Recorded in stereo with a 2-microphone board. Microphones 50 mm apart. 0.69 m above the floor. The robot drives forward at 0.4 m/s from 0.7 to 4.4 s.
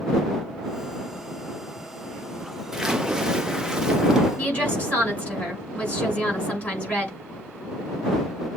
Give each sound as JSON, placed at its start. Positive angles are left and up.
{"t": 2.7, "sound": "a splash", "side_deg": -10, "distance_m": 0.8}
{"t": 4.4, "sound": "a woman speaking", "side_deg": 30, "distance_m": 6.0}